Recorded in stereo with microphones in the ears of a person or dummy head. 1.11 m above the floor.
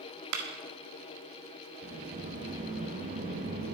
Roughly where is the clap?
Right.